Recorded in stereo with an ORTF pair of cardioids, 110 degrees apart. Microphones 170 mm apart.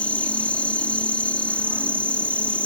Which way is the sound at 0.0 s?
5° left.